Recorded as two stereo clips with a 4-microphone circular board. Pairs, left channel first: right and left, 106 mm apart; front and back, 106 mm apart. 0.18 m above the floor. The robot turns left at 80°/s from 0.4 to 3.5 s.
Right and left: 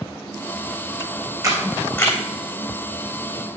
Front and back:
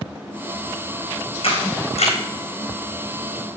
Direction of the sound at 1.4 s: 30° left.